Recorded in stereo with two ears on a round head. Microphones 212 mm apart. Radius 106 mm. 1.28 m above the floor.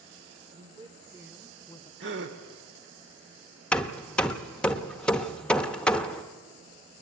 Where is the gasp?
50° right (ahead or behind), 1.6 m.